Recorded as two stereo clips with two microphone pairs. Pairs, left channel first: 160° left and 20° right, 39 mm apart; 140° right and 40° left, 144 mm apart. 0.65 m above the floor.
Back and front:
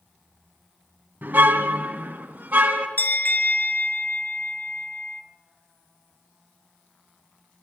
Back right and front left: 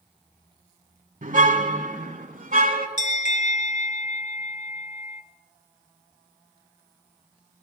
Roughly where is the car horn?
Ahead.